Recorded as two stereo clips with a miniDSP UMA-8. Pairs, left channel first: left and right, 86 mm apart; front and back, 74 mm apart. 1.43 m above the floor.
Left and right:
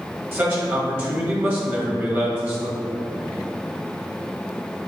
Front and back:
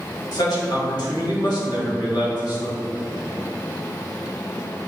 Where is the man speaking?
25° right, 2.0 m.